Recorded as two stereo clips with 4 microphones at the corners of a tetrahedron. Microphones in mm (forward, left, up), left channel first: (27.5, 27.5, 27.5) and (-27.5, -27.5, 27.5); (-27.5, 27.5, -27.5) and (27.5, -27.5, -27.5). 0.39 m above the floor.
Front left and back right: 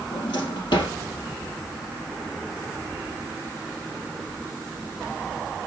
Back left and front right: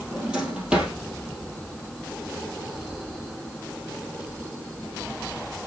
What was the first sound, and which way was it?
A drawer, 35° left.